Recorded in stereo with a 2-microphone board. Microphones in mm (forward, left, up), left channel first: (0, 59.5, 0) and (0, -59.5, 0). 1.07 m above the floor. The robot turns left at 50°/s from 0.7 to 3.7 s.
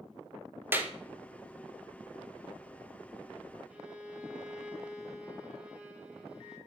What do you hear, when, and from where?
0.7 s a clap: 20° right (ahead or behind), 0.8 m; by 0.9 s 10° right (ahead or behind), 0.8 m
3.7 s a violin: 10° right (ahead or behind), 1.2 m